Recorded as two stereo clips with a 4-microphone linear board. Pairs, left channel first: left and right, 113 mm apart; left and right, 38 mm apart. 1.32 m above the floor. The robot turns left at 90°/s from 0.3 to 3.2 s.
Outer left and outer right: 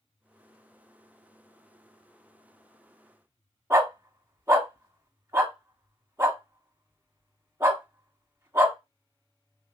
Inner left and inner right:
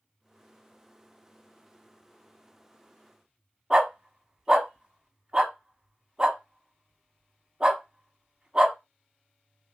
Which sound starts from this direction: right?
A dog barking, at 3.7 s.